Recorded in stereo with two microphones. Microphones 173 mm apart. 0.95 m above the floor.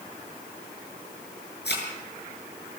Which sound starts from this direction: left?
A thud, at 1.6 s.